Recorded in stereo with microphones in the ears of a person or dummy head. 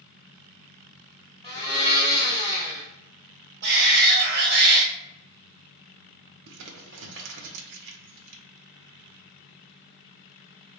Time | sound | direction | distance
1.4 | a blender | 25° left (ahead or behind) | 1.7 m
3.6 | a shout | 60° right (ahead or behind) | 0.7 m
6.5 | crumpling | 70° right (ahead or behind) | 0.6 m